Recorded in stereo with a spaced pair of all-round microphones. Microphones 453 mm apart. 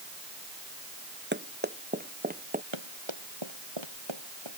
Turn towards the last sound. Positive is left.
turn(degrees=-80)